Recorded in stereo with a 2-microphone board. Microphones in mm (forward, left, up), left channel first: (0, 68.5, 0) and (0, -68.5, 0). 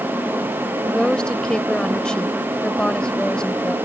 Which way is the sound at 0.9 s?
5° left (ahead or behind).